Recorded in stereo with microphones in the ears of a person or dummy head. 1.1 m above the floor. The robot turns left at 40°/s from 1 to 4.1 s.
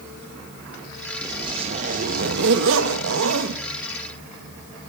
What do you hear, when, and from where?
1.2 s a zipper: 20° right, 0.9 m; by 3.6 s 115° right, 0.9 m